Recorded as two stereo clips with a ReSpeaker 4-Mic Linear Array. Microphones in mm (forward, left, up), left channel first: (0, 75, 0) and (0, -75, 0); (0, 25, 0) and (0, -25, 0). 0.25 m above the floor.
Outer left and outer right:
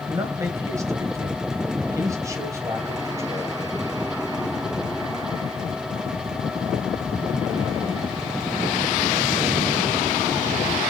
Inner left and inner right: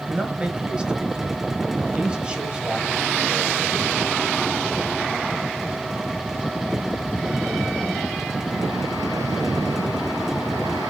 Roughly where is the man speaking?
Right.